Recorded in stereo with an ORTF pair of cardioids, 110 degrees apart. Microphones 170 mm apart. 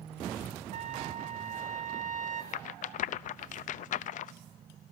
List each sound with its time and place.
0.7 s a trumpet: 50° right, 2.5 m
2.5 s a rattle: 55° left, 0.7 m